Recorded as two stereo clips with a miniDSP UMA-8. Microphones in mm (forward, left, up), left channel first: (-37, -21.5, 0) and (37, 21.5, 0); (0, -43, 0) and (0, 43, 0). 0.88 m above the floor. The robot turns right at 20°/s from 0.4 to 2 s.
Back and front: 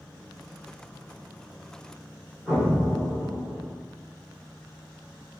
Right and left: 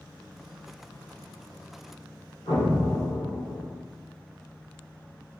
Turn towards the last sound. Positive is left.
turn(degrees=-60)